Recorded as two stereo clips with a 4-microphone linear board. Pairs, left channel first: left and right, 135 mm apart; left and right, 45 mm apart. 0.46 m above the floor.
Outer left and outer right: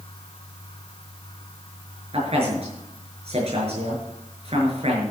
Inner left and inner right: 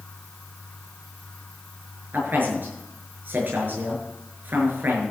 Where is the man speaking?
55° right (ahead or behind), 6.5 m.